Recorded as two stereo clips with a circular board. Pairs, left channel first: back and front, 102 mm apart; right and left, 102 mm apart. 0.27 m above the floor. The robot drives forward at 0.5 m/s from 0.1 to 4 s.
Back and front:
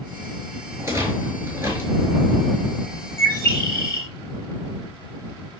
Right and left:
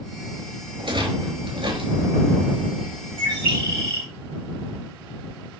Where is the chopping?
No chopping in this recording.